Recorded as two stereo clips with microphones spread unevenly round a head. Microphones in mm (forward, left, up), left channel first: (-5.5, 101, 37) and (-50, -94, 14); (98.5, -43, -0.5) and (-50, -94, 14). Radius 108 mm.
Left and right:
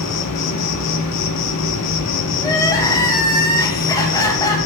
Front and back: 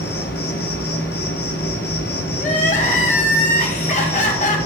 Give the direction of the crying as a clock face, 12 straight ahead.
11 o'clock.